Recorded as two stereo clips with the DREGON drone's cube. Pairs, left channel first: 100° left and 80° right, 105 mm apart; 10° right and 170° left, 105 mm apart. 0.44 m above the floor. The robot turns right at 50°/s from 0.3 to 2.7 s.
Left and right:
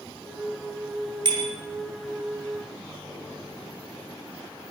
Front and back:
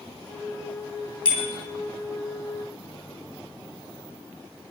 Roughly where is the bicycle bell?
Ahead right.